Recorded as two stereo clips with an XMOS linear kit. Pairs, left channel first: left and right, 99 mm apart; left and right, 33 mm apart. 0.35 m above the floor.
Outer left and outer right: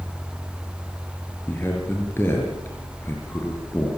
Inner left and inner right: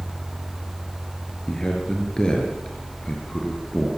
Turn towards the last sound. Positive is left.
turn(degrees=25)  # may be behind; listen again after turning